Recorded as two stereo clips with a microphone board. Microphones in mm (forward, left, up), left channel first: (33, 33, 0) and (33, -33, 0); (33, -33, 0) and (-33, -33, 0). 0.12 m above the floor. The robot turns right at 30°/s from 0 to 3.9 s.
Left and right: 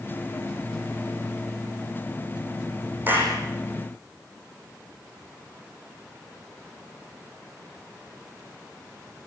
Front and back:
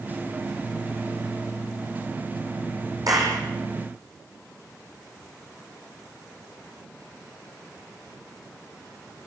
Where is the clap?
150° right, 6 m; by 3.4 s 145° right, 6 m.